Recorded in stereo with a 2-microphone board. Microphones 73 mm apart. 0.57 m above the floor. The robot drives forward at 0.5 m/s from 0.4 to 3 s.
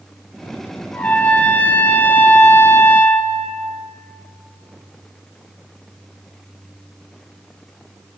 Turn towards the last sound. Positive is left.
turn(degrees=30)  # may be behind; listen again after turning